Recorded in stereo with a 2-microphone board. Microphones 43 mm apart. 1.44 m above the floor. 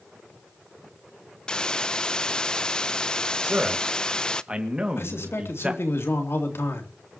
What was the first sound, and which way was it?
A hiss, 20° left (ahead or behind).